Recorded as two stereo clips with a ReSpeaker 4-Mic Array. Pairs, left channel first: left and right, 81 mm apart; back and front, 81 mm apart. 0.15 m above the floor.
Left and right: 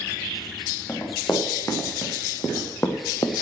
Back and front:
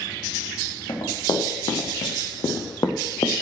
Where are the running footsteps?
160° left, 5 m; by 3.4 s 135° left, 1.8 m.